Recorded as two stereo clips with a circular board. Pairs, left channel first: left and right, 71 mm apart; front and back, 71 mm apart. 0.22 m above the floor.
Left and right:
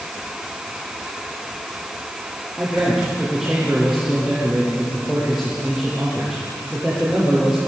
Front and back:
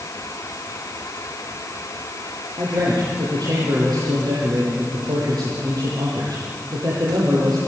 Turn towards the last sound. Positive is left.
turn(degrees=-175)